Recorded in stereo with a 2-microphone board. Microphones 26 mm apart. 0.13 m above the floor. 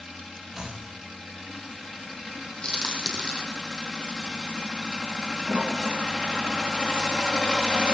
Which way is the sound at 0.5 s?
5° right (ahead or behind).